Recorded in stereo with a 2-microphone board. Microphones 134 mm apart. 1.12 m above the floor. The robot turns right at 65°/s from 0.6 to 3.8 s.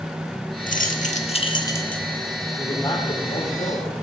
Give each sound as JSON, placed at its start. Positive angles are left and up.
{"t": 0.7, "sound": "keys jangling", "azimuth_deg": 85, "distance_m": 1.3}
{"t": 2.6, "sound": "a man speaking", "azimuth_deg": 0, "distance_m": 6.0}